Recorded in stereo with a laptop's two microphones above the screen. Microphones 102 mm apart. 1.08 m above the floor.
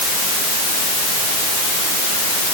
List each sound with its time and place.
Only background noise.